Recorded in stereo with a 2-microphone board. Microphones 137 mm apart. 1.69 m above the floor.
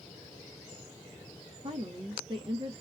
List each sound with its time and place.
1.6 s a woman speaking: 40° right (ahead or behind), 0.8 m